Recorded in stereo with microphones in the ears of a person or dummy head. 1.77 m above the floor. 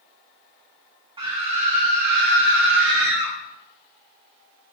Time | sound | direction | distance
1.2 | a scream | 25° right (ahead or behind) | 1.1 m